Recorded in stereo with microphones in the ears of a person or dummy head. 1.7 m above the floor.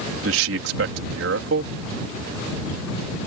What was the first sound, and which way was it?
A man speaking, 75° right (ahead or behind).